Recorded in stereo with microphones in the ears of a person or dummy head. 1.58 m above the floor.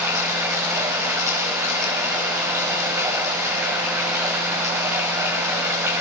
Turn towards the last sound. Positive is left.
turn(degrees=-10)  # may be behind; listen again after turning